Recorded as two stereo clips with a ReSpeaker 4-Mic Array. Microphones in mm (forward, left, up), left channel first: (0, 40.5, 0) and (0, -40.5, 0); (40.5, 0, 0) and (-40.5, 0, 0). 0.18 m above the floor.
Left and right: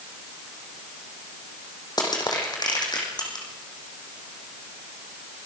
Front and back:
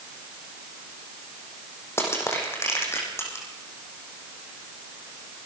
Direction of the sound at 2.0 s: 55° left.